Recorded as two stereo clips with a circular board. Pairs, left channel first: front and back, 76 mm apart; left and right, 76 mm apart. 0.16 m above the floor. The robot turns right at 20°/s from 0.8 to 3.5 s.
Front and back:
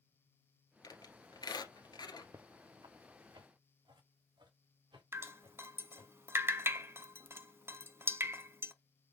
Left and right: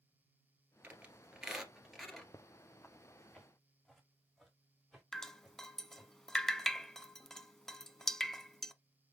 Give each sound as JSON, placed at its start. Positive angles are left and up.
{"t": 0.8, "sound": "a squeak", "azimuth_deg": -20, "distance_m": 1.7}
{"t": 2.3, "sound": "footsteps", "azimuth_deg": 135, "distance_m": 0.6}
{"t": 5.1, "sound": "dripping", "azimuth_deg": 170, "distance_m": 0.6}